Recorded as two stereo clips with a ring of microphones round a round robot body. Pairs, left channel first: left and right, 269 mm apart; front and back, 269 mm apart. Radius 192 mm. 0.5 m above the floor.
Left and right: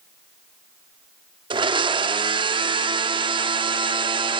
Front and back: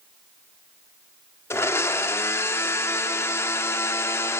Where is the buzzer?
No buzzer in this recording.